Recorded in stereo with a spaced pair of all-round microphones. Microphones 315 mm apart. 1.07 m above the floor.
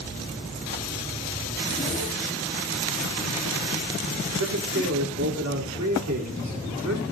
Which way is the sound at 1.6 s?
15° left (ahead or behind).